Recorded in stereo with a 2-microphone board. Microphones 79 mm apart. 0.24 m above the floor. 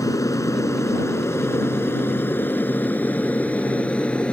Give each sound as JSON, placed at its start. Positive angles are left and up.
{"t": 0.0, "sound": "an aircraft", "side_deg": 45}